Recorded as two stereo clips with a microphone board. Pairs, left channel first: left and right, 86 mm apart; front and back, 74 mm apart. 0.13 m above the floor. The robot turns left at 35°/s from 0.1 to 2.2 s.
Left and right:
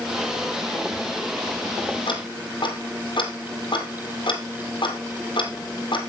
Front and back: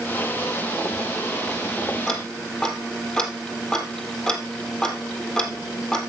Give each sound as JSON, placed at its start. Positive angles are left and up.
{"t": 2.1, "sound": "ticking", "azimuth_deg": 85, "distance_m": 2.0}